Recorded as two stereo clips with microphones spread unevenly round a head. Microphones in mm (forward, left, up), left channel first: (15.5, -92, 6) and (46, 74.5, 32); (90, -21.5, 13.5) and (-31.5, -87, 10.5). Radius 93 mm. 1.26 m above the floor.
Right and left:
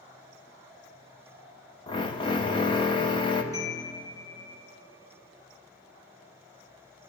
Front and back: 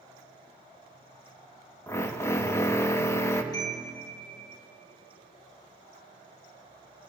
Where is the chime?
30° right, 3.5 m.